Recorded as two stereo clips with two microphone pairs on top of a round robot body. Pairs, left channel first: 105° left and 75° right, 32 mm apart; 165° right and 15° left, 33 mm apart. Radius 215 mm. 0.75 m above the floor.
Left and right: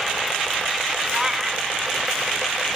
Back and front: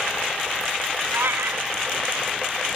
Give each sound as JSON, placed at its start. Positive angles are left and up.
{"t": 1.1, "sound": "a cat meowing", "azimuth_deg": -5, "distance_m": 1.0}